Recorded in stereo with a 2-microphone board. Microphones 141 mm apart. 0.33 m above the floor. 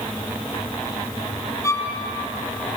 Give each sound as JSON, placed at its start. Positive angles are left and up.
{"t": 1.6, "sound": "a violin", "side_deg": 20, "distance_m": 2.0}